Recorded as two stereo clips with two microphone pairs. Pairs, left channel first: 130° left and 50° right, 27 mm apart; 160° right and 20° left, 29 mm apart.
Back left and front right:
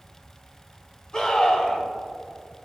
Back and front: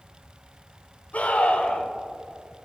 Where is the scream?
170° right, 2.5 m.